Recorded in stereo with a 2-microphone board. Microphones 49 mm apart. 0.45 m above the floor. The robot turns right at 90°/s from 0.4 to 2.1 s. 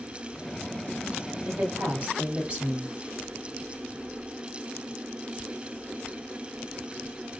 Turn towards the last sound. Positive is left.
turn(degrees=-25)